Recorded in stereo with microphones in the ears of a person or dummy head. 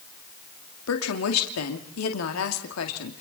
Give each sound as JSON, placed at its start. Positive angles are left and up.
{"t": 0.9, "sound": "a woman speaking", "side_deg": 80, "distance_m": 2.0}